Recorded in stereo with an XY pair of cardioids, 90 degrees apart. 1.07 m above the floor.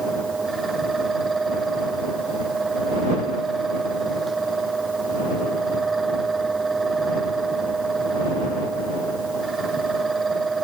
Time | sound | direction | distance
0.0 | a fan | 30° right | ?